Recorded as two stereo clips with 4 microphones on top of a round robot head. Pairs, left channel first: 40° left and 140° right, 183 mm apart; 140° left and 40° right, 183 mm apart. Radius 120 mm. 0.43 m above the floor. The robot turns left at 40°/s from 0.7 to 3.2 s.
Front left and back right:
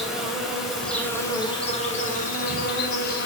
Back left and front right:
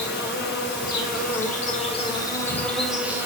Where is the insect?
135° left, 3 m; by 3.3 s 35° left, 3 m.